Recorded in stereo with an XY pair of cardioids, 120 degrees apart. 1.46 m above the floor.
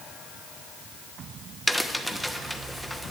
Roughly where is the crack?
Ahead.